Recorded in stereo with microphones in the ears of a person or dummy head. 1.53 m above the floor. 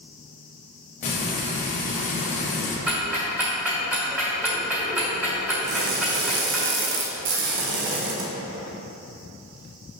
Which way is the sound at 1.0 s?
35° left (ahead or behind).